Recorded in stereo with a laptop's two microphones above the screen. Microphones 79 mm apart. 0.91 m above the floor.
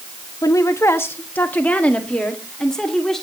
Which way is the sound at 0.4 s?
45° left (ahead or behind).